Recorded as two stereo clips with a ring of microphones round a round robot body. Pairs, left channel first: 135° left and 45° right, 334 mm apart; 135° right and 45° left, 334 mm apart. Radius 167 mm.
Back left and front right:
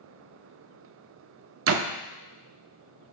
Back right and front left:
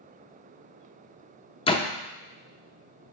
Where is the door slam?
65° right, 0.5 m.